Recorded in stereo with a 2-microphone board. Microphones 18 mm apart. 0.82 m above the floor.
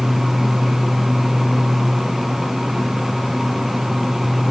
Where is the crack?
I don't hear a crack.